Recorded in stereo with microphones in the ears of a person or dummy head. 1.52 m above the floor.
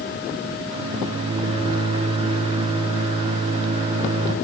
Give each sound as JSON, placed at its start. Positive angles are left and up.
{"t": 0.7, "sound": "a microwave", "side_deg": -30, "distance_m": 1.4}